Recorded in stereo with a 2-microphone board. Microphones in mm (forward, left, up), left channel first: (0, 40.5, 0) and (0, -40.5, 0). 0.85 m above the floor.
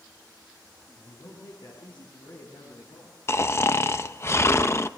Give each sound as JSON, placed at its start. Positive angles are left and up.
{"t": 0.9, "sound": "a man speaking", "side_deg": 85, "distance_m": 8.5}
{"t": 3.3, "sound": "snoring", "side_deg": 35, "distance_m": 0.7}